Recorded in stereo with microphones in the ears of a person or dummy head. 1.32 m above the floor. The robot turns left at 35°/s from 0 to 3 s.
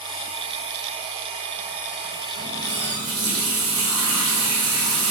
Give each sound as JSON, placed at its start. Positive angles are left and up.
{"t": 2.4, "sound": "a running tap", "side_deg": -65, "distance_m": 1.8}